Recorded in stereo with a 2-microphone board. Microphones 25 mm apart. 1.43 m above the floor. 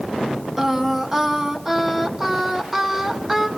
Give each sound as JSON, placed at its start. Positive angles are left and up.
{"t": 0.6, "sound": "singing", "side_deg": -15, "distance_m": 1.6}